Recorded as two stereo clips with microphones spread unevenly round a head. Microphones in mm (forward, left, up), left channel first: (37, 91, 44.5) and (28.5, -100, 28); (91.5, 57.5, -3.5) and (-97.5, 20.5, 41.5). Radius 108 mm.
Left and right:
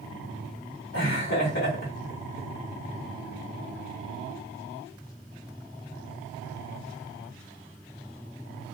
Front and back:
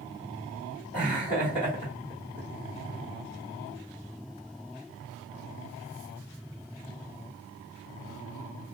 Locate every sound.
0.9 s laughter: 70° left, 2.5 m